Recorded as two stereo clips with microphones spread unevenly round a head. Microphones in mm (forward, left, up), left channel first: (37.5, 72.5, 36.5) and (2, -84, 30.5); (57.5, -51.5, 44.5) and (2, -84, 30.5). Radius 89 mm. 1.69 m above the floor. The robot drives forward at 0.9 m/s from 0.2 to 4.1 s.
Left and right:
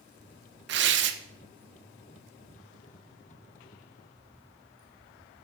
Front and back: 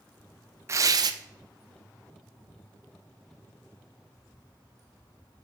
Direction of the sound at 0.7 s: 100° right.